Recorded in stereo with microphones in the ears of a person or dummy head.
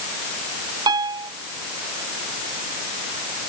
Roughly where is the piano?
Right.